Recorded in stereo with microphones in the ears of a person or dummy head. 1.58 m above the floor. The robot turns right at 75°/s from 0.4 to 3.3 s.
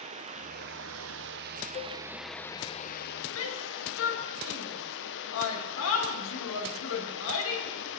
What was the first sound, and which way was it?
Running water, 140° right.